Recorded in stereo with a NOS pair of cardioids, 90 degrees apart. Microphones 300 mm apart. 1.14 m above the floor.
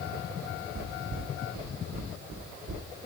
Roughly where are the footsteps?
Ahead right.